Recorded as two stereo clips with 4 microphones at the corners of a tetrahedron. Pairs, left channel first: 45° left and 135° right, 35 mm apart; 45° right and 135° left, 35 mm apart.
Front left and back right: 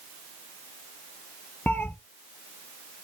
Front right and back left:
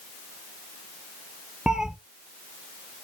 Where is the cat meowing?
65° left, 0.5 m.